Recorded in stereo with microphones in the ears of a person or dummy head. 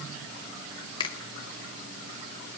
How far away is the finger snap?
About 0.8 m.